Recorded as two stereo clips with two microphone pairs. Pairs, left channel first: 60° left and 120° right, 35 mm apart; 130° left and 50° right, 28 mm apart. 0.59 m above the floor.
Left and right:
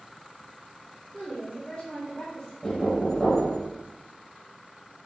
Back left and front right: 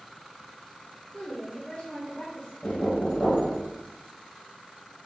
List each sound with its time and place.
1.1 s a woman speaking: 140° left, 2.5 m
2.6 s knocking: 135° left, 1.9 m